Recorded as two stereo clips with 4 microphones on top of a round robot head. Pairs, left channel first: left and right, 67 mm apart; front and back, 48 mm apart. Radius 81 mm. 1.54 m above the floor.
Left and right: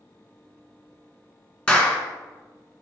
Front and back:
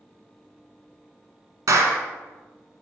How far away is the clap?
About 1.5 m.